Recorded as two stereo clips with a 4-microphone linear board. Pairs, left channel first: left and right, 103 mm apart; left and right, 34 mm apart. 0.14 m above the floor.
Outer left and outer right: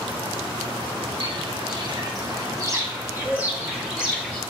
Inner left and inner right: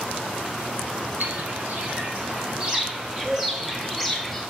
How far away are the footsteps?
About 4 m.